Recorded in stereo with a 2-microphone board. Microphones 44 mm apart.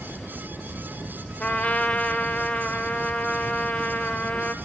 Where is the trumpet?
30° left (ahead or behind), 1.0 m.